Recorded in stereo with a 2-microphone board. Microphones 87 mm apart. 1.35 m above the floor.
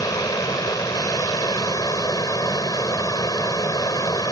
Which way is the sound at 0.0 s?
45° left (ahead or behind).